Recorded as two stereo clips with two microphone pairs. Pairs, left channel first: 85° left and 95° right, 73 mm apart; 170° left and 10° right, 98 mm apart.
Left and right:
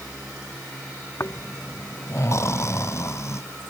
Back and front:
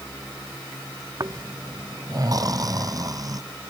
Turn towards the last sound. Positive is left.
turn(degrees=35)